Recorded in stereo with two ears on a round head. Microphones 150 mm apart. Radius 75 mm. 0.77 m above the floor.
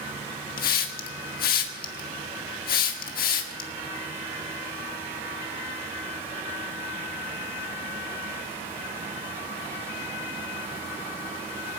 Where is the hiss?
55° left (ahead or behind), 1.5 m.